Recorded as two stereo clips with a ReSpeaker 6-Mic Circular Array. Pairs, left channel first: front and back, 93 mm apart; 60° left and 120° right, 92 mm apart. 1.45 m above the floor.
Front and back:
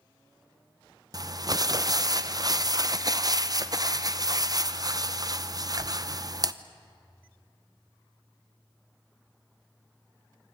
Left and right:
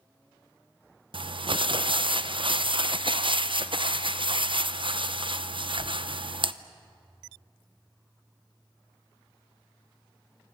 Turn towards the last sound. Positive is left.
turn(degrees=-135)